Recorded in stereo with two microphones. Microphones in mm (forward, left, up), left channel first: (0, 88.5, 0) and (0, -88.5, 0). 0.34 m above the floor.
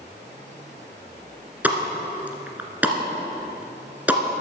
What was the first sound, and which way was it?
A pop, 10° right (ahead or behind).